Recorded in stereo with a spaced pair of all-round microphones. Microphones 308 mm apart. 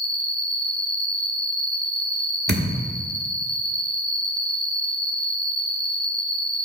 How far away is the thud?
About 1.1 m.